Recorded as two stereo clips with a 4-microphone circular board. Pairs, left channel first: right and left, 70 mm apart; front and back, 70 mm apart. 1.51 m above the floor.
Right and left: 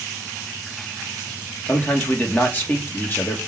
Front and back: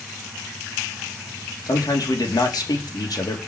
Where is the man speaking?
30° right, 2.5 m.